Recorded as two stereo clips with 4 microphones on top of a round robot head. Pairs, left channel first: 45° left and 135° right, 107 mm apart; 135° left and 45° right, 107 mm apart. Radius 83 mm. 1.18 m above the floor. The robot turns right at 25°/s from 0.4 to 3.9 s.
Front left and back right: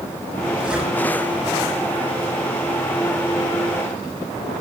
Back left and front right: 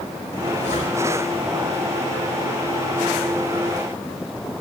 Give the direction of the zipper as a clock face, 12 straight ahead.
7 o'clock.